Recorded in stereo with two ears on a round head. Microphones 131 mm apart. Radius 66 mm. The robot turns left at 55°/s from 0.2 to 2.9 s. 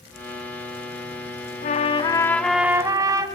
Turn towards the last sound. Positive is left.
turn(degrees=-20)